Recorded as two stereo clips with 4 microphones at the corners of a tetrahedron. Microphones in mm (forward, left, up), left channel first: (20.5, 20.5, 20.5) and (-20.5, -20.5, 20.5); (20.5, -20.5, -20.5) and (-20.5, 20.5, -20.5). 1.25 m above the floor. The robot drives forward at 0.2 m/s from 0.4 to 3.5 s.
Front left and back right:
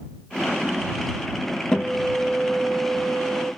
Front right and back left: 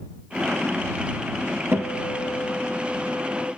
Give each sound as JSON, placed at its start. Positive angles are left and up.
{"t": 1.7, "sound": "a guitar", "azimuth_deg": 115, "distance_m": 0.9}